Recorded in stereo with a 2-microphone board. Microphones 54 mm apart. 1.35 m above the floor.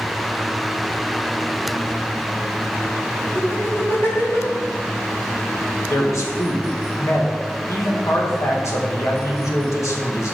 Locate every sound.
3.4 s laughter: 45° left (ahead or behind), 2.5 m
5.9 s a man speaking: 65° left (ahead or behind), 1.7 m